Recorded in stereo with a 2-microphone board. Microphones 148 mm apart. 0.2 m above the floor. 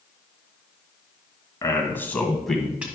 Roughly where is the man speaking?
Left.